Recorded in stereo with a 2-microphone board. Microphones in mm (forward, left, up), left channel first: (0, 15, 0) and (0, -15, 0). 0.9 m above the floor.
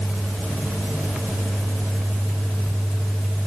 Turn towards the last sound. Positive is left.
No sound to turn to.